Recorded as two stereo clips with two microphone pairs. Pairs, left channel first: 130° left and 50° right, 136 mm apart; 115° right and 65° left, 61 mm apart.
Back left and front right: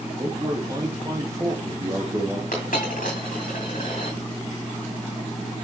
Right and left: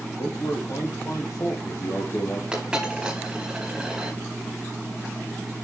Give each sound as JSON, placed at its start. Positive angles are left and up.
{"t": 0.2, "sound": "a man speaking", "azimuth_deg": -115, "distance_m": 3.5}
{"t": 2.5, "sound": "a dropped coin", "azimuth_deg": 140, "distance_m": 4.5}